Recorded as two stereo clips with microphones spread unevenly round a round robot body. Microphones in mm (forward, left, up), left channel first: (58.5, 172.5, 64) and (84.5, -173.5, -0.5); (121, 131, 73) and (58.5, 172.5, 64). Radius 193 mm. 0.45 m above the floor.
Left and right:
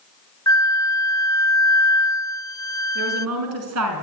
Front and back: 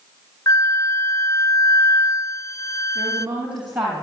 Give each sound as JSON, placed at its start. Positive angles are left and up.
{"t": 0.5, "sound": "a flute", "azimuth_deg": 5, "distance_m": 0.6}
{"t": 3.0, "sound": "a woman speaking", "azimuth_deg": -135, "distance_m": 5.0}